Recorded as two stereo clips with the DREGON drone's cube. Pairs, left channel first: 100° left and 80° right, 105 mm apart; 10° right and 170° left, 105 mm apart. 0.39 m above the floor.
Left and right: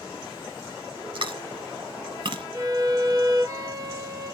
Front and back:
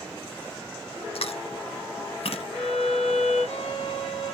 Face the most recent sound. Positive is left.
turn(degrees=-25)